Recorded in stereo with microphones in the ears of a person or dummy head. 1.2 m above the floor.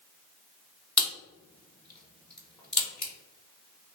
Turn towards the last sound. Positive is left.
turn(degrees=5)  # may be behind; listen again after turning